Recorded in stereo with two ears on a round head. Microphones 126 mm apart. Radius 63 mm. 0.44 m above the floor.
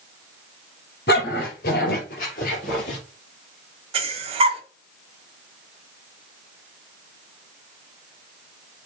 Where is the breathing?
40° right (ahead or behind), 1.2 m.